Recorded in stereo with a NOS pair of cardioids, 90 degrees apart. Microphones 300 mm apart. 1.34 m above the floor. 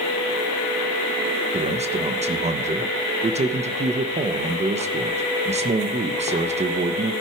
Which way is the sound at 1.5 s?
20° right.